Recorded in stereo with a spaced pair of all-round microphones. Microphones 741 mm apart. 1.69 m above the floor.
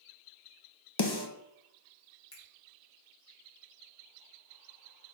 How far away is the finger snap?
About 3 m.